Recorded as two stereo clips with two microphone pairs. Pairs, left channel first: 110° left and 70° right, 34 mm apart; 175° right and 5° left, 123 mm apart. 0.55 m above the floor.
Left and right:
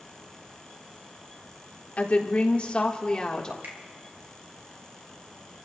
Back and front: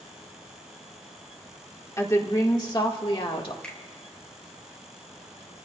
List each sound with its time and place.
2.0 s a woman speaking: 130° left, 1.8 m; by 3.5 s 170° left, 1.7 m
3.6 s a finger snap: 95° right, 3 m